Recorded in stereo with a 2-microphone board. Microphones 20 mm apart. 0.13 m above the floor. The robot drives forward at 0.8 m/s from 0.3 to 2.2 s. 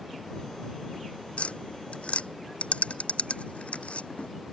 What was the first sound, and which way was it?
Tapping, 75° left (ahead or behind).